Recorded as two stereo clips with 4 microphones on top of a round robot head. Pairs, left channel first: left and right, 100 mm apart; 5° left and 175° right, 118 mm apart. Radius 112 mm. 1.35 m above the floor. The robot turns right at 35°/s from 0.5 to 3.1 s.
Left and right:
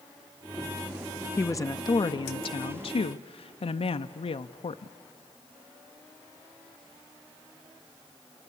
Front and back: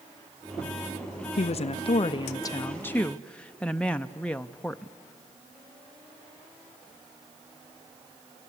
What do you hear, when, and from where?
1.4 s a woman speaking: 25° left, 0.5 m; by 4.9 s 85° left, 0.5 m